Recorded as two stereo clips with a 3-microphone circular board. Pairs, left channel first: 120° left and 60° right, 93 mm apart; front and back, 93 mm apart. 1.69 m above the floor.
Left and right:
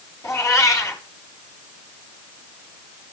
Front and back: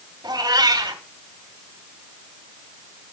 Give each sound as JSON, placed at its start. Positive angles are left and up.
{"t": 0.2, "sound": "a cat meowing", "azimuth_deg": 160, "distance_m": 1.9}